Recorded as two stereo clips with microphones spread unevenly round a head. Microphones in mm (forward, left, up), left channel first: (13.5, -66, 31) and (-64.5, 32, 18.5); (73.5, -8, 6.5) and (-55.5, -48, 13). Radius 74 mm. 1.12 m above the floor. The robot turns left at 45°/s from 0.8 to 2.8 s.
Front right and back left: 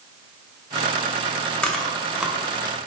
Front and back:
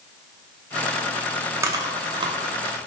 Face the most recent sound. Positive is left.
turn(degrees=-170)